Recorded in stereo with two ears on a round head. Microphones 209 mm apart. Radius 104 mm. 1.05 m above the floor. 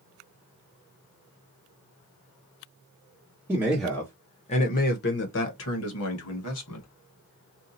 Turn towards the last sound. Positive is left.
turn(degrees=75)  # may be behind; listen again after turning